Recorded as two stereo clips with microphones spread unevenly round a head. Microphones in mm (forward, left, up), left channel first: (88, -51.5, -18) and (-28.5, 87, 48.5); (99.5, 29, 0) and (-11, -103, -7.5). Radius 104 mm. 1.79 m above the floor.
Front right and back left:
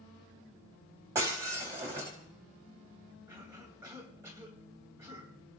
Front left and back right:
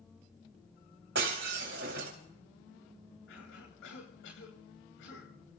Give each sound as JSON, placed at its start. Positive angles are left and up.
{"t": 1.1, "sound": "breaking glass", "azimuth_deg": -160, "distance_m": 4.0}
{"t": 3.3, "sound": "a cough", "azimuth_deg": 55, "distance_m": 8.0}